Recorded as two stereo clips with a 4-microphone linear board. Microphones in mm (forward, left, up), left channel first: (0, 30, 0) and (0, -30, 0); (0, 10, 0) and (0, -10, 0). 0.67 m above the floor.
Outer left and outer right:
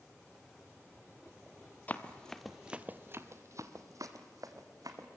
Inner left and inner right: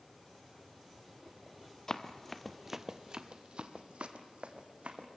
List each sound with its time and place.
1.9 s running footsteps: 25° left (ahead or behind), 1.1 m; by 5.1 s 75° right (ahead or behind), 2.5 m